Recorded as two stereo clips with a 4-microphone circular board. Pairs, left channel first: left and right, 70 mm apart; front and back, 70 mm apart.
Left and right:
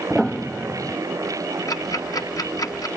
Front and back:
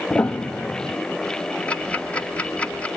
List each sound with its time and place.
0.1 s a piano: 10° right, 0.7 m
1.7 s ticking: 70° left, 1.4 m